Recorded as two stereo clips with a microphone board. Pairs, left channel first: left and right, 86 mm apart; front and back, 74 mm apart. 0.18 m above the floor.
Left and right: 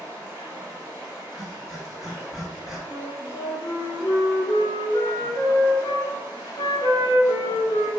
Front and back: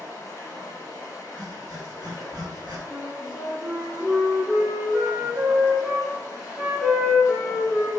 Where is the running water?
35° right, 1.0 m.